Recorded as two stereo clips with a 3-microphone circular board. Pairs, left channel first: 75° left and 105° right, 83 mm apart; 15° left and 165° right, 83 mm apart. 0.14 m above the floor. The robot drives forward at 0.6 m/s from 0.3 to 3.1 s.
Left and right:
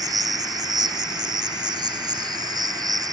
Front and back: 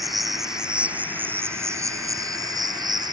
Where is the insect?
75° right; by 3.1 s 140° right.